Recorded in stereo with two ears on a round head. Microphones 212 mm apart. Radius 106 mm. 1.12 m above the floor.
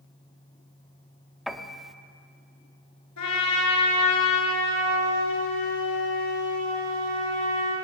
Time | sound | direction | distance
1.5 | a piano | centre (ahead or behind) | 1.1 m
3.2 | a trumpet | 80° left | 8.5 m